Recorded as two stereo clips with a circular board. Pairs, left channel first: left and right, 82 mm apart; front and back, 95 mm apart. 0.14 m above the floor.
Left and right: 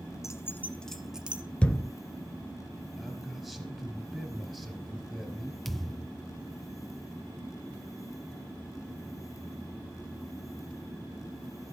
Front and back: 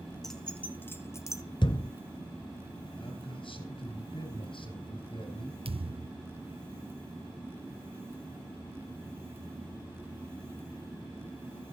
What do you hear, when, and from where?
0.2 s keys jangling: 85° left, 1.2 m; by 1.4 s 30° right, 1.2 m
1.6 s a thud: 15° left, 0.8 m
3.0 s a man speaking: straight ahead, 3.5 m
5.7 s a thud: 175° left, 0.6 m